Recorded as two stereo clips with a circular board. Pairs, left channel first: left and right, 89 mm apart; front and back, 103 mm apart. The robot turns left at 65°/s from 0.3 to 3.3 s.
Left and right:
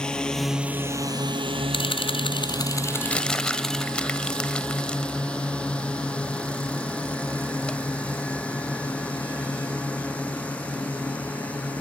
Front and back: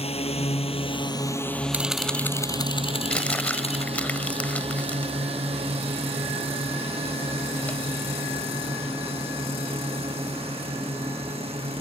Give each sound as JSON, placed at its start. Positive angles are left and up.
{"t": 0.0, "sound": "a drone", "azimuth_deg": 10}
{"t": 1.7, "sound": "a camera shutter", "azimuth_deg": 105}
{"t": 3.1, "sound": "crumpling", "azimuth_deg": 50}